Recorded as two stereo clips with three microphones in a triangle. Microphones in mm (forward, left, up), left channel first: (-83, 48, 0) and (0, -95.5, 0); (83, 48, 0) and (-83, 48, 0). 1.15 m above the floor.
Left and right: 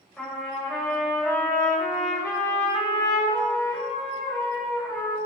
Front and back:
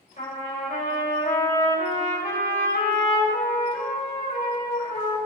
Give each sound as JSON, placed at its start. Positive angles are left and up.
{"t": 0.2, "sound": "a trumpet", "azimuth_deg": 35, "distance_m": 3.5}